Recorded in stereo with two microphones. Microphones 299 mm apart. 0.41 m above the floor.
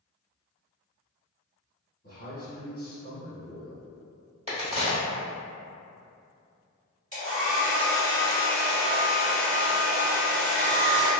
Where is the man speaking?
30° left (ahead or behind), 0.9 m.